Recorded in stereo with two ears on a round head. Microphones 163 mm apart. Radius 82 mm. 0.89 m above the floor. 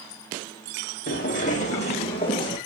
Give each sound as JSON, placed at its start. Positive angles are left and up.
{"t": 1.1, "sound": "footsteps", "side_deg": 50, "distance_m": 2.0}